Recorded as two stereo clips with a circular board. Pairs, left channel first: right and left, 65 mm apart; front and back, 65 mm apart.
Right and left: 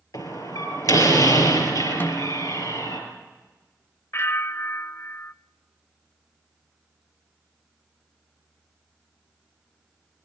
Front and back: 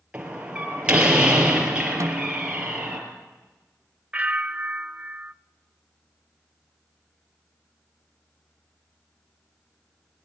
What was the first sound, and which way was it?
A door slam, 105° right.